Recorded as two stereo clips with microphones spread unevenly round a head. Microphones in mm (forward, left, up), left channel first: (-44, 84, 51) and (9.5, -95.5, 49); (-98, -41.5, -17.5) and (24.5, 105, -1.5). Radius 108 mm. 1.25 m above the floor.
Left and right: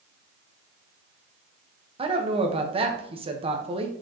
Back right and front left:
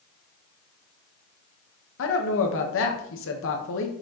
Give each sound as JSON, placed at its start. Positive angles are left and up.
{"t": 2.0, "sound": "a woman speaking", "azimuth_deg": -135, "distance_m": 1.3}